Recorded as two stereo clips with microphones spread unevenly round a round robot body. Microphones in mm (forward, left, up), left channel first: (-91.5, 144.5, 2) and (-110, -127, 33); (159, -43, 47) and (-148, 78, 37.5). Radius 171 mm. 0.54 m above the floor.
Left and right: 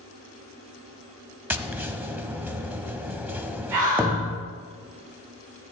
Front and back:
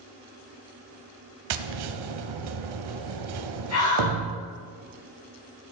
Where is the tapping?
175° right, 0.9 m.